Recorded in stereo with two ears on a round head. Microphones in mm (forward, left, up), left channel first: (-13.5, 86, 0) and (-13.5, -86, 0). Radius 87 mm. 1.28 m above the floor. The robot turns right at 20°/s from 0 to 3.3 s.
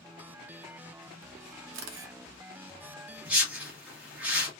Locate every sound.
1.7 s a camera shutter: 65° right (ahead or behind), 0.9 m; by 2.1 s 60° right (ahead or behind), 0.9 m
3.2 s a whoosh: 10° right (ahead or behind), 1.6 m; by 4.5 s 5° right (ahead or behind), 1.6 m